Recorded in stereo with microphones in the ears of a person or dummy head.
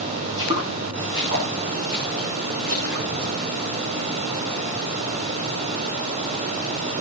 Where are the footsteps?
20° right (ahead or behind), 5 m; by 3.3 s 65° right (ahead or behind), 4.5 m.